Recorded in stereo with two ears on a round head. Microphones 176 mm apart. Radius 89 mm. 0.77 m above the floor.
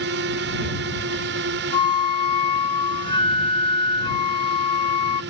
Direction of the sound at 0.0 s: 60° right (ahead or behind).